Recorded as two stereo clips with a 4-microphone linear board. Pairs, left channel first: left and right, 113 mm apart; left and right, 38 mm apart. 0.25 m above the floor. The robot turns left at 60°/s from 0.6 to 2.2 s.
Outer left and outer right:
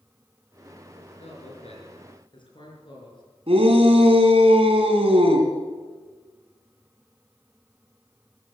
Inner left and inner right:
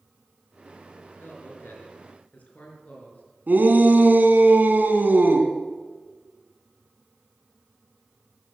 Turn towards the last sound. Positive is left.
turn(degrees=-60)  # may be behind; listen again after turning